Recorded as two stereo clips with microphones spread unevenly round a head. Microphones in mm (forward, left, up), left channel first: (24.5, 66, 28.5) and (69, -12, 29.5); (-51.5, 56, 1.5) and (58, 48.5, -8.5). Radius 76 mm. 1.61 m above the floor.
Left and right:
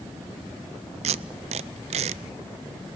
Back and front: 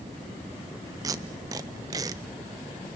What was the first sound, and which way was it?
Tape being pulled, 75° right.